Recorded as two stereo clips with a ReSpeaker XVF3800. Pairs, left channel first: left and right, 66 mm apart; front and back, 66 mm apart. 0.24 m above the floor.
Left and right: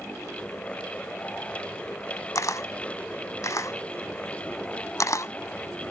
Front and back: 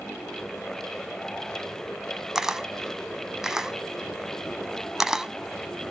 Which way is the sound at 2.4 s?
100° left.